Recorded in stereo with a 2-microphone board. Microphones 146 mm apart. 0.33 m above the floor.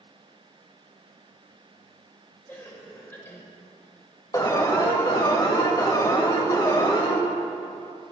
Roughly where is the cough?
Centre.